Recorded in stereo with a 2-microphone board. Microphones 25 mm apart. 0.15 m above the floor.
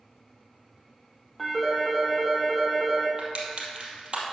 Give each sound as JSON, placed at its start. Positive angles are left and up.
{"t": 1.4, "sound": "a phone ringing", "side_deg": 0, "distance_m": 2.5}
{"t": 3.2, "sound": "crushing", "side_deg": -50, "distance_m": 2.5}